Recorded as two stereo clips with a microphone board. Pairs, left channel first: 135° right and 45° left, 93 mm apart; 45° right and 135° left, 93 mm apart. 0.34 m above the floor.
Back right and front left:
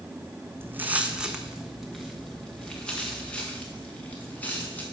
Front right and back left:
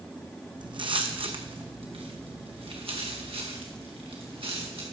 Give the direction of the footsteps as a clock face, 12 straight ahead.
8 o'clock.